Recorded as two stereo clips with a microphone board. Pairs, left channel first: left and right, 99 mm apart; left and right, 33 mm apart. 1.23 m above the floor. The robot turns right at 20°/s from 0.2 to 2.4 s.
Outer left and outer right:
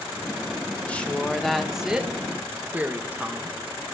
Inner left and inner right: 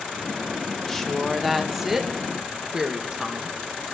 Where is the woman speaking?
165° left, 1.3 m; by 3.6 s 165° right, 1.3 m.